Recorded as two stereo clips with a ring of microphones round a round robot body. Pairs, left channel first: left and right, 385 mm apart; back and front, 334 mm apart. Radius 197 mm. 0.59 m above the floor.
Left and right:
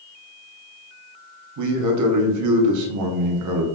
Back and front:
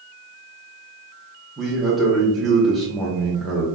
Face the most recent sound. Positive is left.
turn(degrees=-90)